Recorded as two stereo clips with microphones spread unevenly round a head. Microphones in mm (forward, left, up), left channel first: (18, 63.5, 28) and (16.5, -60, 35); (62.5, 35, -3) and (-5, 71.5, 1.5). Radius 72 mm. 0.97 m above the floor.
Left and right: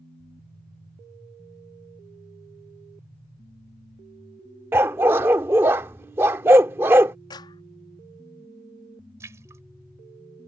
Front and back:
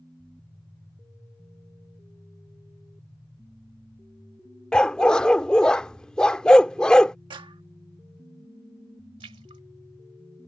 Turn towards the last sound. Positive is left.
turn(degrees=-160)